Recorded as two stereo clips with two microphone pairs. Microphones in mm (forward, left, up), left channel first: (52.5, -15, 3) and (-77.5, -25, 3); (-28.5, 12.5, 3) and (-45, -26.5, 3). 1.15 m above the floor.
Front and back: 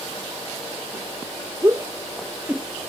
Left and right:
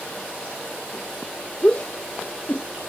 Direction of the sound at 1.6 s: 125° left.